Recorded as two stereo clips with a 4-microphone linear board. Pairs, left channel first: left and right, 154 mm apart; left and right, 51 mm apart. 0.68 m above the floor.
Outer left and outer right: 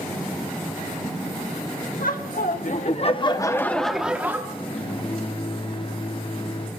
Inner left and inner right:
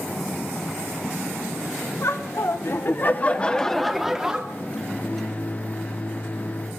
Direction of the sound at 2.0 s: 65° left (ahead or behind).